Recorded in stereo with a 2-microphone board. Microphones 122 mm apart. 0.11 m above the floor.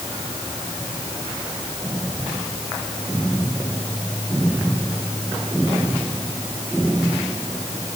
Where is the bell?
I don't hear a bell.